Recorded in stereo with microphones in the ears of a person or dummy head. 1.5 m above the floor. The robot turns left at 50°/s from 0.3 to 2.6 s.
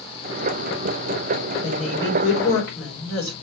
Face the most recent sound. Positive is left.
turn(degrees=135)